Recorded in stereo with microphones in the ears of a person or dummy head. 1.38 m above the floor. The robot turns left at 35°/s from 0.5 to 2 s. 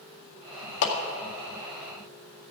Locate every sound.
0.8 s a clap: 75° left (ahead or behind), 1.9 m; by 0.9 s 70° left (ahead or behind), 1.9 m